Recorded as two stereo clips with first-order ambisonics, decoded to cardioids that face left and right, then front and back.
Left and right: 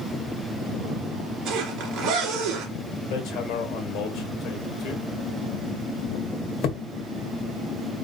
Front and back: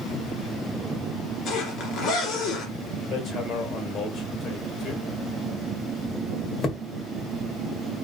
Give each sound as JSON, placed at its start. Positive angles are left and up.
{"t": 1.4, "sound": "a zipper", "azimuth_deg": -40, "distance_m": 2.5}
{"t": 3.1, "sound": "hammering", "azimuth_deg": 55, "distance_m": 1.6}